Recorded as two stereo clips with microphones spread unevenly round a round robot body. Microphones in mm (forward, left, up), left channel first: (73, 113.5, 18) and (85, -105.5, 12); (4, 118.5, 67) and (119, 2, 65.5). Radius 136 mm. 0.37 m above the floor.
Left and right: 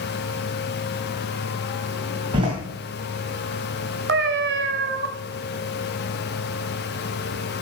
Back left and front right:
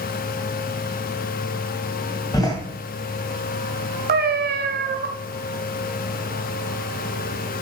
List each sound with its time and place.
2.3 s a door slam: 155° right, 2.5 m
4.1 s a cat meowing: 60° right, 1.3 m